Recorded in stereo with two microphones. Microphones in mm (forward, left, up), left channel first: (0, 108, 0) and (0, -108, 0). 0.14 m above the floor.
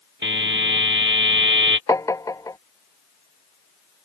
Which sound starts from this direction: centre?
Tapping, at 1.9 s.